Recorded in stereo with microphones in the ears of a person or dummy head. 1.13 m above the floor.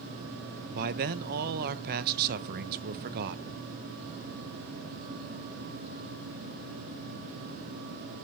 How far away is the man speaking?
About 0.6 m.